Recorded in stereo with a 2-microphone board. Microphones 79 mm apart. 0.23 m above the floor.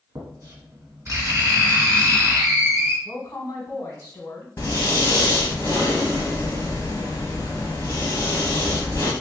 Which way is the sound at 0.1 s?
45° right (ahead or behind).